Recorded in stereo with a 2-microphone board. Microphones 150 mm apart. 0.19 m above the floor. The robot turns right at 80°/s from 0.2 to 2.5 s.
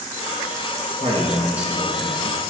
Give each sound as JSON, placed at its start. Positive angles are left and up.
{"t": 1.0, "sound": "a man speaking", "azimuth_deg": -55, "distance_m": 2.0}